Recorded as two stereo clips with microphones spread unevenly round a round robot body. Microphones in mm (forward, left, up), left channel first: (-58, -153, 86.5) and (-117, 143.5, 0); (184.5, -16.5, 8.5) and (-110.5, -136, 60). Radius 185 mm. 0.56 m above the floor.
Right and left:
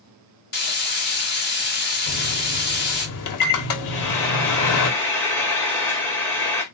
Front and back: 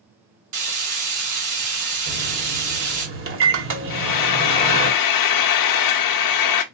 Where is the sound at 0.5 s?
140° right, 1.9 m.